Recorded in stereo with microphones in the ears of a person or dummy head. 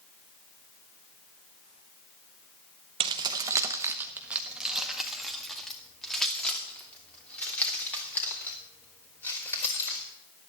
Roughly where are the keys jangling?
Right.